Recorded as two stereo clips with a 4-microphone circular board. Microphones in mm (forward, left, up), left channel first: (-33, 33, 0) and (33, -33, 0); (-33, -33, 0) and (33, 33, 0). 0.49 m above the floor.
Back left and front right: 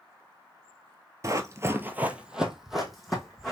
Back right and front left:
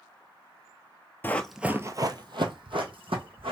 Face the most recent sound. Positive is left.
turn(degrees=50)